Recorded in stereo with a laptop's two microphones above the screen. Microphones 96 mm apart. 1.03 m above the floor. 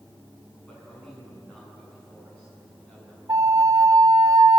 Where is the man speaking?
10° left (ahead or behind), 9 m.